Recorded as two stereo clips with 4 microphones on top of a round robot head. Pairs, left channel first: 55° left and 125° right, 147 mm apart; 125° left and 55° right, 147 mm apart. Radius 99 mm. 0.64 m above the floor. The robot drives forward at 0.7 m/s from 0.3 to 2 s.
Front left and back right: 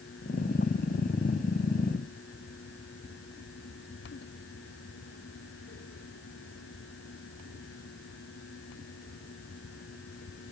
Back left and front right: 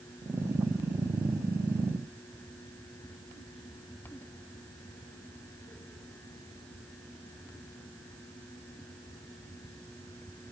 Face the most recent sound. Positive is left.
No sound to turn to.